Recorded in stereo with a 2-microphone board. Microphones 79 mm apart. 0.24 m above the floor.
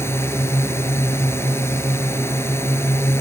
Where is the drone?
30° left (ahead or behind).